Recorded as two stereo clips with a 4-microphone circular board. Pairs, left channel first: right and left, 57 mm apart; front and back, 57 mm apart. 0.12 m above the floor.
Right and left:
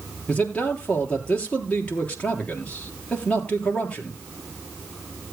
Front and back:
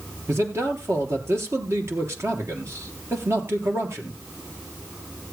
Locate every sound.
0.3 s a man speaking: 155° right, 3 m